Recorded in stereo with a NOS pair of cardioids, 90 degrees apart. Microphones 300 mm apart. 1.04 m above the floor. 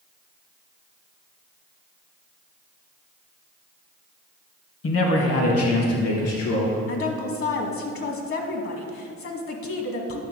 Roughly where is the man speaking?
Ahead left.